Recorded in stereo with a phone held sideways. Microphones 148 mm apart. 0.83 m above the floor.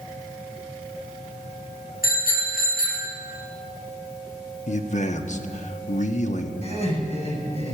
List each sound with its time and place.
2.0 s a bicycle bell: 85° left, 6.5 m; by 3.1 s 70° left (ahead or behind), 7.5 m
4.7 s a man speaking: 55° left (ahead or behind), 1.1 m
6.6 s laughter: 50° left (ahead or behind), 6.5 m